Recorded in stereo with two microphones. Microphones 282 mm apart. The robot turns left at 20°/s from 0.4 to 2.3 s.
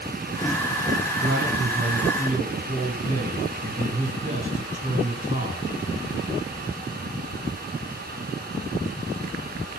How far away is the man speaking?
About 2.5 m.